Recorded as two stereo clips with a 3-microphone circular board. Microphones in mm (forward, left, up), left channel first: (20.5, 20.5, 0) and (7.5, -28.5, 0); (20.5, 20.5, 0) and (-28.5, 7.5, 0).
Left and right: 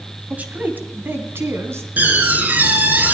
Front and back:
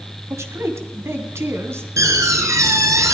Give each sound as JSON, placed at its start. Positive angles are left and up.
{"t": 0.3, "sound": "a man speaking", "azimuth_deg": -165, "distance_m": 1.8}
{"t": 2.0, "sound": "a door slam", "azimuth_deg": -160, "distance_m": 3.0}